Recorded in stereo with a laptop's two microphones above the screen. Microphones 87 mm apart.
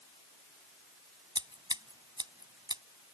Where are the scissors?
60° right (ahead or behind).